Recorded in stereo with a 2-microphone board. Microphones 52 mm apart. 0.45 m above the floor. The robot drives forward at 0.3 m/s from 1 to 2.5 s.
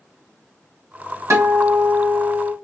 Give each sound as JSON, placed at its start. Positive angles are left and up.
{"t": 1.3, "sound": "a guitar", "side_deg": -75, "distance_m": 2.0}